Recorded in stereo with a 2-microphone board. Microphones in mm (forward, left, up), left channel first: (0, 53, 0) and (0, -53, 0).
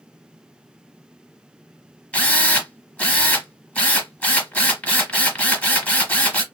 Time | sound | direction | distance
2.1 | a drill | 15° left (ahead or behind) | 0.9 m